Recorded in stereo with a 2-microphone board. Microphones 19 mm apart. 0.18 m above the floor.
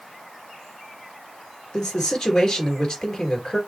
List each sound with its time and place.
1.7 s a man speaking: 40° left (ahead or behind), 2.5 m